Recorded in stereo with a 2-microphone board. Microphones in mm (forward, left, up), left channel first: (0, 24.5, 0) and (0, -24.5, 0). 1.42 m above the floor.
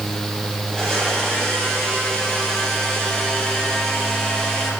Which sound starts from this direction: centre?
A blender, at 0.7 s.